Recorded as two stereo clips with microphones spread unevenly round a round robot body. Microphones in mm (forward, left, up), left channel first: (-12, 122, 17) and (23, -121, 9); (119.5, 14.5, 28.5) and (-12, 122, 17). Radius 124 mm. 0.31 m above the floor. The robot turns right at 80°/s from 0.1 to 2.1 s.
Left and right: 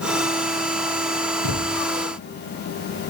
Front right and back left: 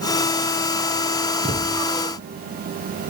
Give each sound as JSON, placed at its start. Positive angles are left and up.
{"t": 1.4, "sound": "a thud", "azimuth_deg": 85, "distance_m": 2.0}